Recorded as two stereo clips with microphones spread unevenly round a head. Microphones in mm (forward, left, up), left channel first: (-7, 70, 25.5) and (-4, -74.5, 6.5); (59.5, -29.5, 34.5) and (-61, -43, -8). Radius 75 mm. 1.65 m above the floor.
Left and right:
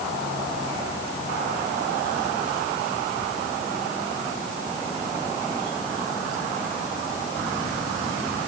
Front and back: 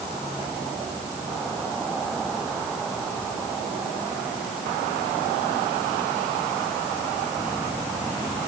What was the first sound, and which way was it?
Only background noise.